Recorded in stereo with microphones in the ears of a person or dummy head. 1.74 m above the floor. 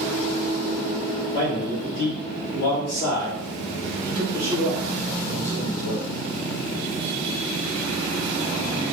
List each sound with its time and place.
1.3 s a man speaking: 45° left (ahead or behind), 1.5 m